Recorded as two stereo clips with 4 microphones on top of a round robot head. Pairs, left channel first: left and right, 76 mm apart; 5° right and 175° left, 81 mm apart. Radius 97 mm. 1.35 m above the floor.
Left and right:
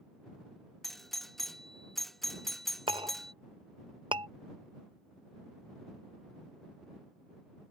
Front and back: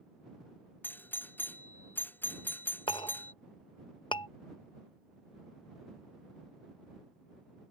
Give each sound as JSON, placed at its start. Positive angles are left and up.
{"t": 0.8, "sound": "a doorbell", "azimuth_deg": 10}
{"t": 2.9, "sound": "a clink", "azimuth_deg": -50}